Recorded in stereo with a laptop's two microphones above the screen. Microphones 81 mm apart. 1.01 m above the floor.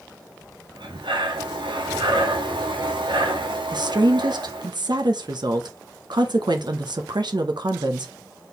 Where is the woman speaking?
65° right (ahead or behind), 0.7 m.